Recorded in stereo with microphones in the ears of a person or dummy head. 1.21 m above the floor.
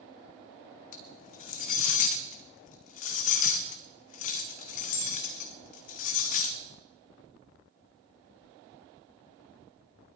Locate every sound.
0.9 s cutlery clinking: 40° left (ahead or behind), 0.9 m